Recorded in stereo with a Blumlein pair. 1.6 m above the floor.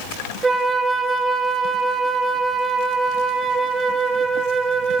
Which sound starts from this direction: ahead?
A flute, at 0.4 s.